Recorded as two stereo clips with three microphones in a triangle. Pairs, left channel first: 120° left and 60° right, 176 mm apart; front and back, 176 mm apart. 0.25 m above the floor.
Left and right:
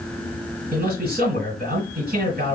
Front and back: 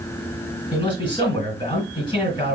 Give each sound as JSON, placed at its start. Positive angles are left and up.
{"t": 0.7, "sound": "a man speaking", "azimuth_deg": -55, "distance_m": 3.0}